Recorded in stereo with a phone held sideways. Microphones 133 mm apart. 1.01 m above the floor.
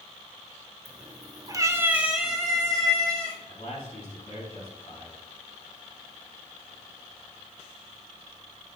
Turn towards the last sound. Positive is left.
turn(degrees=55)  # may be behind; listen again after turning